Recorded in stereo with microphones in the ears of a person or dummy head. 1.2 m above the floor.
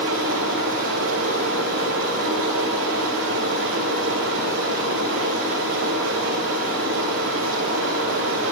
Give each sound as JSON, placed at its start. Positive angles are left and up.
{"t": 0.0, "sound": "running water", "side_deg": -80, "distance_m": 10.0}